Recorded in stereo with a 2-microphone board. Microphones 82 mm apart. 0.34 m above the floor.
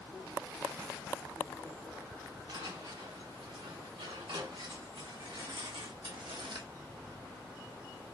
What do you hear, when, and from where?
2.5 s footsteps: 85° right, 3 m; by 6.7 s 70° right (ahead or behind), 0.7 m